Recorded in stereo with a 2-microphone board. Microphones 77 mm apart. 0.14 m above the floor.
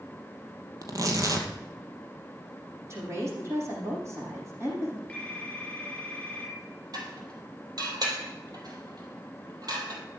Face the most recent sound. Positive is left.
turn(degrees=-55)  # may be behind; listen again after turning